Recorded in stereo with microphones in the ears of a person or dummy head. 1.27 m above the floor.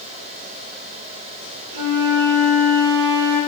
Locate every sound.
1.7 s a flute: 70° right (ahead or behind), 0.5 m